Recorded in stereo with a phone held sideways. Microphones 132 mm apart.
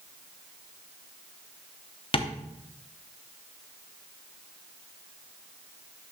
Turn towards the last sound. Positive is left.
turn(degrees=45)  # may be behind; listen again after turning